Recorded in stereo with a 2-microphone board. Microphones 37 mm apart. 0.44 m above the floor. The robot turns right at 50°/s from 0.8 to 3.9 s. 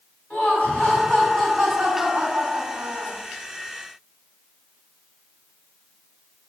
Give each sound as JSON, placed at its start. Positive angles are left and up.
{"t": 0.3, "sound": "laughter", "azimuth_deg": 145, "distance_m": 3.5}